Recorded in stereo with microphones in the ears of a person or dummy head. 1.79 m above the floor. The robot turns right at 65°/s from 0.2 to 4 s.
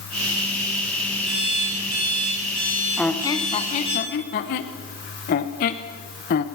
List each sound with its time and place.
1.3 s an alarm clock: 140° right, 9 m; by 4.0 s 35° left, 9 m
3.0 s a squeak: 5° left (ahead or behind), 1.1 m; by 6.4 s 45° left (ahead or behind), 1.1 m